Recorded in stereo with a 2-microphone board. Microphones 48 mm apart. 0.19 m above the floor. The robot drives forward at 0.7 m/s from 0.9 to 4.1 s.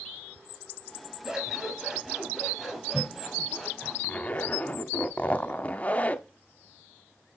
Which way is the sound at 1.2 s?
10° right (ahead or behind).